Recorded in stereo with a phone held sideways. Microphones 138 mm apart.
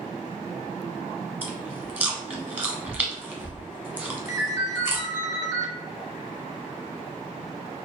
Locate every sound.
1.4 s chewing: 10° right (ahead or behind), 0.8 m
4.3 s a ringtone: 25° right (ahead or behind), 1.1 m